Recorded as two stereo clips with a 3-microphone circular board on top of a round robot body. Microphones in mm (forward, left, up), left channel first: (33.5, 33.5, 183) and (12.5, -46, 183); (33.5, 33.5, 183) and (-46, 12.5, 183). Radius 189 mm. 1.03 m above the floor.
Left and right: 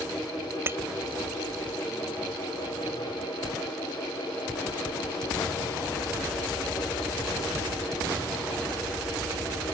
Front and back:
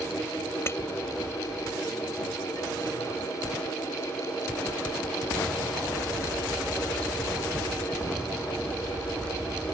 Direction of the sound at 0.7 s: 50° right.